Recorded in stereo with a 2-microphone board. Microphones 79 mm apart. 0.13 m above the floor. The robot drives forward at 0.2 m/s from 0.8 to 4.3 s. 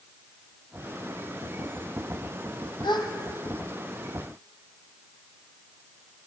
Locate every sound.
2.8 s a gasp: 70° left (ahead or behind), 1.3 m; by 3.1 s 65° left (ahead or behind), 1.3 m